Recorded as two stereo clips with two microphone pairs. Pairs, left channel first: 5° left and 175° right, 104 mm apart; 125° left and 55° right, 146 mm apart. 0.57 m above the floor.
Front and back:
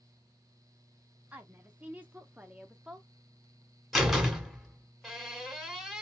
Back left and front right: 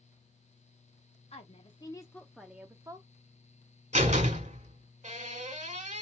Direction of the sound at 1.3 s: 115° left.